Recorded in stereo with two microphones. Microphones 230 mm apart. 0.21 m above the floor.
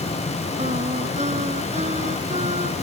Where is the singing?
30° right (ahead or behind).